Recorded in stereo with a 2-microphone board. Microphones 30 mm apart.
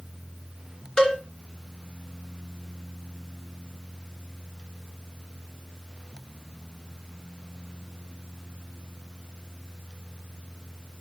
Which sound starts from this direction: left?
A cowbell, at 1.0 s.